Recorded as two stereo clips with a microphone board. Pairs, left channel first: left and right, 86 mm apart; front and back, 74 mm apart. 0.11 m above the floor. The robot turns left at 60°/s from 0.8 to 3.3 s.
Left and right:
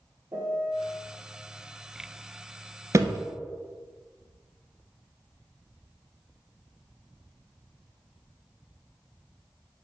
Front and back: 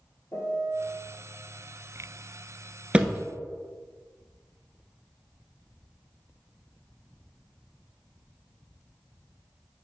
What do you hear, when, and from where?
0.3 s a piano: 40° right, 1.5 m; by 1.0 s 50° right, 1.5 m
2.9 s a thud: 110° right, 0.6 m; by 3.2 s 130° right, 0.6 m